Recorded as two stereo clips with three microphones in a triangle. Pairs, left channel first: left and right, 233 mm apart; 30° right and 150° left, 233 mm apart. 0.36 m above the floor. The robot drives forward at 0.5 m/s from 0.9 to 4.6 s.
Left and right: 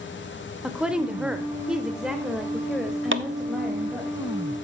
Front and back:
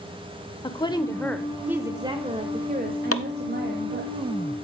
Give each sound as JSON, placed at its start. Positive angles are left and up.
{"t": 0.6, "sound": "a woman speaking", "azimuth_deg": -10, "distance_m": 0.8}
{"t": 3.1, "sound": "chopping", "azimuth_deg": -50, "distance_m": 0.7}